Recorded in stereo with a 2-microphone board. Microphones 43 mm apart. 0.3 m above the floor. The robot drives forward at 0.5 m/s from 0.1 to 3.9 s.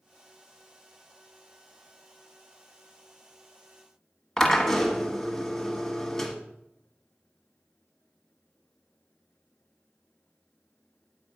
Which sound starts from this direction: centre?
A drill, at 4.4 s.